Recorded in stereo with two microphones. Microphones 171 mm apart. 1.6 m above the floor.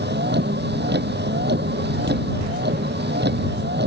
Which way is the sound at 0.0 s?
85° right.